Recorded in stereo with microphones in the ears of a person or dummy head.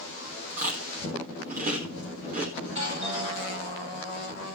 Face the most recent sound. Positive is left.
turn(degrees=-30)  # may be behind; listen again after turning